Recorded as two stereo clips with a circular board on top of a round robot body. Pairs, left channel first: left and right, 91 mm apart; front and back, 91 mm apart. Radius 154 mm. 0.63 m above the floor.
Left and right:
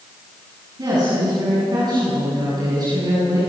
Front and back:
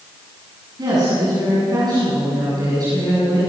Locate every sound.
0.8 s a woman speaking: 135° right, 9 m